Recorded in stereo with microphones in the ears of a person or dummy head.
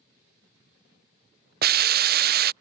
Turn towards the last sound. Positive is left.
turn(degrees=-50)  # may be behind; listen again after turning